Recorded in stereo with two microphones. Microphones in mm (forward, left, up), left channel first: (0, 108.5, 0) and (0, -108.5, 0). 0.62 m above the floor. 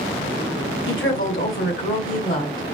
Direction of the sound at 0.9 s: 65° left (ahead or behind).